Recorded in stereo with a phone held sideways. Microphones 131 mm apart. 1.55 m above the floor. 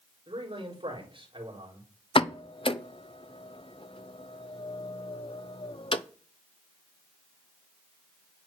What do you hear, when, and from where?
0.3 s a man speaking: 45° right (ahead or behind), 4 m
2.1 s a pop: 45° left (ahead or behind), 0.6 m